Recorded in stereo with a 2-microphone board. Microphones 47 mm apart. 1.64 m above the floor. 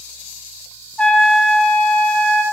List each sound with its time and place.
1.0 s a trumpet: 25° left (ahead or behind), 1.4 m